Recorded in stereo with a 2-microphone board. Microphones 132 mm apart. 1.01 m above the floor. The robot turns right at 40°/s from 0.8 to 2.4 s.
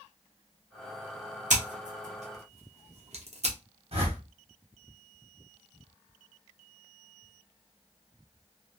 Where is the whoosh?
50° right (ahead or behind), 1.2 m.